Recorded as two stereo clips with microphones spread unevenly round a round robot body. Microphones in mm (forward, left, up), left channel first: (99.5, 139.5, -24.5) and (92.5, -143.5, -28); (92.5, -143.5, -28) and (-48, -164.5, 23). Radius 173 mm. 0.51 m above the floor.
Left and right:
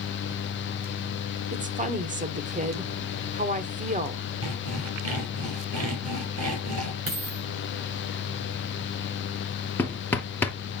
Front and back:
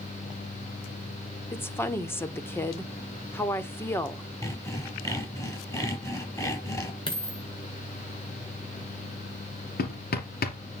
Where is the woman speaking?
40° right, 1.2 m.